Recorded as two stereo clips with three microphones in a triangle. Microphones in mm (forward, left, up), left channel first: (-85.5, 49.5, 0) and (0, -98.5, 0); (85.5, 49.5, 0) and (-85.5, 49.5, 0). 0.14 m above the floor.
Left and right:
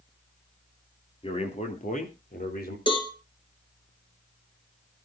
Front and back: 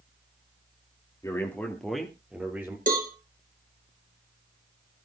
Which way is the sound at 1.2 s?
70° left.